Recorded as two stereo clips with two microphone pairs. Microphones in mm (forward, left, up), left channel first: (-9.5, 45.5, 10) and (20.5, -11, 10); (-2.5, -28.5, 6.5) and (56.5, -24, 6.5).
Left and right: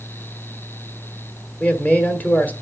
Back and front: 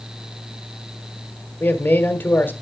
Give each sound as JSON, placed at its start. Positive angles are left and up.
{"t": 1.6, "sound": "a man speaking", "azimuth_deg": 165, "distance_m": 1.5}